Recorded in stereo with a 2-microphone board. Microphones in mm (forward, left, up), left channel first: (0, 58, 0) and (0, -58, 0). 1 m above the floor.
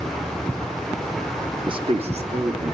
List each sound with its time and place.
1.7 s a man speaking: 40° right (ahead or behind), 0.7 m; by 2.7 s 70° right (ahead or behind), 2 m